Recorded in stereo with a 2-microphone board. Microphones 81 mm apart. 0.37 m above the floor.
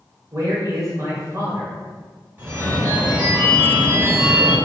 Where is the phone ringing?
30° right (ahead or behind), 1.2 m.